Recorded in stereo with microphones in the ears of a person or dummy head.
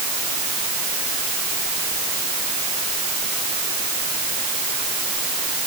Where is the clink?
No clink in this recording.